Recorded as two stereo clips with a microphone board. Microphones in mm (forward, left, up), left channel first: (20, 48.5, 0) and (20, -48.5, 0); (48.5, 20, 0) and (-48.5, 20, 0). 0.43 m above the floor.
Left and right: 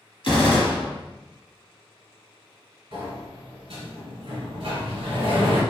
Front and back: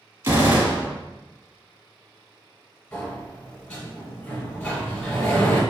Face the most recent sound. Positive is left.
turn(degrees=-75)